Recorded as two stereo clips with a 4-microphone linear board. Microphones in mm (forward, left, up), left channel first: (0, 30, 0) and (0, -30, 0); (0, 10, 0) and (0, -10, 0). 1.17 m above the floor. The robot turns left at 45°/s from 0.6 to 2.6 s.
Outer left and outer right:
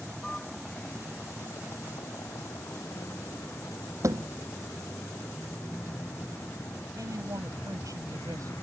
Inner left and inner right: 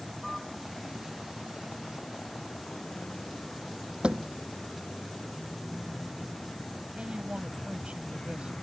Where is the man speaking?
80° right.